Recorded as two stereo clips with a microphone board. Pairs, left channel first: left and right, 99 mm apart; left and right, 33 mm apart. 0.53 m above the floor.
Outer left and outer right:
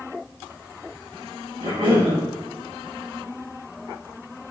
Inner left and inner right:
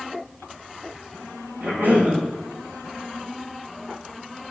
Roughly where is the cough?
Right.